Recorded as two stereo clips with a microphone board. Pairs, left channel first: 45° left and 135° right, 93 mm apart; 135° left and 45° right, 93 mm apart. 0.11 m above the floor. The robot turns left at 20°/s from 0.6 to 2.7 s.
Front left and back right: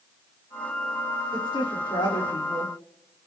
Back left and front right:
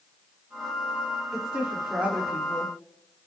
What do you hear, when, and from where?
1.3 s a woman speaking: 40° left, 7.5 m; by 2.7 s 15° left, 7.5 m